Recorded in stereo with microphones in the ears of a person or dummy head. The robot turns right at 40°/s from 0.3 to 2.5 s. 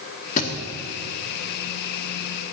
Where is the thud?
45° left (ahead or behind), 1.8 m; by 0.5 s 50° left (ahead or behind), 1.8 m.